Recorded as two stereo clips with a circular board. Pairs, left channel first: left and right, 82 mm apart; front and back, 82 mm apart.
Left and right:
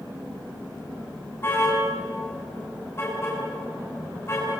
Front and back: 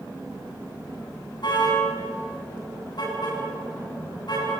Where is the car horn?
30° left, 8 m.